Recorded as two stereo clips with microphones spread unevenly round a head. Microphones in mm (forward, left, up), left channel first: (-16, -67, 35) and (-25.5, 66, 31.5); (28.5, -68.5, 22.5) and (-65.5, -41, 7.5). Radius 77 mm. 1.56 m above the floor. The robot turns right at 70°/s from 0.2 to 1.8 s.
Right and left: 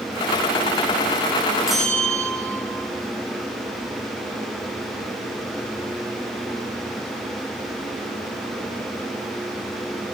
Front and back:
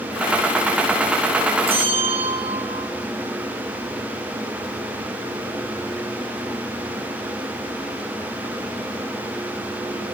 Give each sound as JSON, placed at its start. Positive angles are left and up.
{"t": 1.7, "sound": "a bell", "azimuth_deg": 180, "distance_m": 4.5}